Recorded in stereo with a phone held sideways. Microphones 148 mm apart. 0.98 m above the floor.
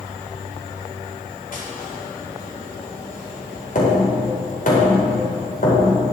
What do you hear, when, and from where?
1.5 s tapping: 60° left (ahead or behind), 4 m